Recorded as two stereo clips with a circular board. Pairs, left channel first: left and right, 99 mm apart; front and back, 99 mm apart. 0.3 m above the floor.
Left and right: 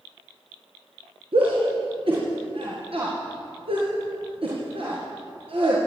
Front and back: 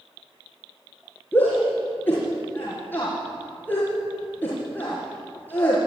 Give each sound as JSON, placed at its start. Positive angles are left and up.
{"t": 1.3, "sound": "a shout", "azimuth_deg": -70, "distance_m": 5.5}